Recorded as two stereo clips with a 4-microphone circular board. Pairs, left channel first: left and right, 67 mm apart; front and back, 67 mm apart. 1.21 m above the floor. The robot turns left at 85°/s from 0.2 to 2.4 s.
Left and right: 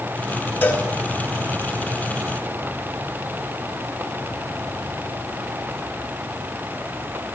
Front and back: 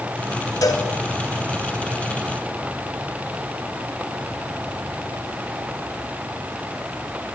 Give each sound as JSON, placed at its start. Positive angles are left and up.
{"t": 0.6, "sound": "a cowbell", "azimuth_deg": 25, "distance_m": 4.5}